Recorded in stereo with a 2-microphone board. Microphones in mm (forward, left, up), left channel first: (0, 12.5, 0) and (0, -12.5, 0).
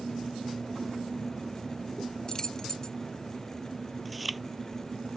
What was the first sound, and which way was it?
Keys jangling, 25° left (ahead or behind).